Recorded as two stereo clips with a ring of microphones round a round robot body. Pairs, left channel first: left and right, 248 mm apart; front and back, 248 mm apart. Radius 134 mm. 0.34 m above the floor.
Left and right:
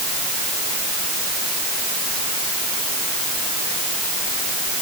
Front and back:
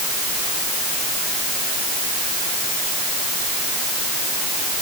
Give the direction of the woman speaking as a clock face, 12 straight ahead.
No woman speaking in this recording.